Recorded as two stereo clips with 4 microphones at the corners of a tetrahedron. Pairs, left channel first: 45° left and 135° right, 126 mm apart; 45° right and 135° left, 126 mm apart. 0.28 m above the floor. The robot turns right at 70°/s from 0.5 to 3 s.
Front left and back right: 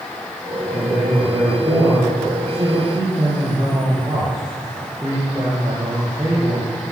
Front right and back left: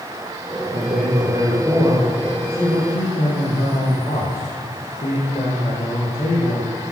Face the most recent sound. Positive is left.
turn(degrees=-65)